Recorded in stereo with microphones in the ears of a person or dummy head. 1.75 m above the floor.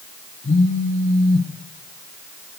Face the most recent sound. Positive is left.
turn(degrees=40)  # may be behind; listen again after turning